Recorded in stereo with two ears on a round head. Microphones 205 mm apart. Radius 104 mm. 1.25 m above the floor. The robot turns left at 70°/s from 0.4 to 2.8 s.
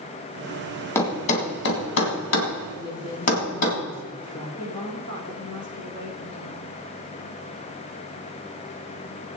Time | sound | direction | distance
0.9 | a thud | 10° left (ahead or behind) | 2.5 m
2.7 | a woman speaking | 25° left (ahead or behind) | 4 m
4.6 | a woman speaking | 80° left | 5.5 m